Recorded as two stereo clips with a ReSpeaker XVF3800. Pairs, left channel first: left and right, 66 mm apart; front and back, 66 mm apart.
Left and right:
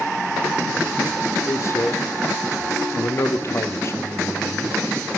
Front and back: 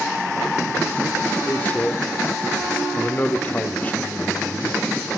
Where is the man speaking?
60° left, 1.0 m.